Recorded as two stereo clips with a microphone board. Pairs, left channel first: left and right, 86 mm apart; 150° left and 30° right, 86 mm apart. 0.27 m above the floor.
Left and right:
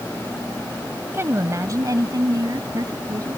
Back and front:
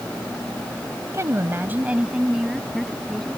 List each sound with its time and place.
1.1 s a woman speaking: 50° right; by 3.4 s 125° right